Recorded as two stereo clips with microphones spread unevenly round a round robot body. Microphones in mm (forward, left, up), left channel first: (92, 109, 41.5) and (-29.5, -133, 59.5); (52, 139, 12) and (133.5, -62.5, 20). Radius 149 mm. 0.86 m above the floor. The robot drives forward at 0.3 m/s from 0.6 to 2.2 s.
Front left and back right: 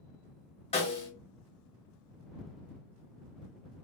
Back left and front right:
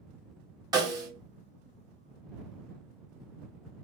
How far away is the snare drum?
About 0.8 m.